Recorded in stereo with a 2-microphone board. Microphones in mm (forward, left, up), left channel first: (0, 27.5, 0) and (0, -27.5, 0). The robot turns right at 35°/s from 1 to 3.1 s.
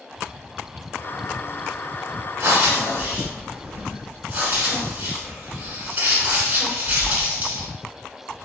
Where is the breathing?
50° right (ahead or behind), 0.9 m; by 7.7 s 35° right (ahead or behind), 0.9 m.